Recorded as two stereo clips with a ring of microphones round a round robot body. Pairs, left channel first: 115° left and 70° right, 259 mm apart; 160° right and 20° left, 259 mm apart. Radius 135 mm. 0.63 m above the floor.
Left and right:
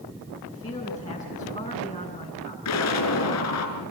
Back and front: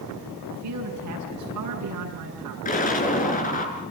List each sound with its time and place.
0.4 s a man speaking: 35° left, 8 m
2.6 s an explosion: 140° left, 5 m